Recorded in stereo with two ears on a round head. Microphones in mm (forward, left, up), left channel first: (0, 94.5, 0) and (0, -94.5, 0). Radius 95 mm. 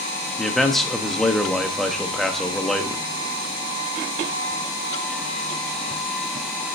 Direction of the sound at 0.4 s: Centre (ahead or behind).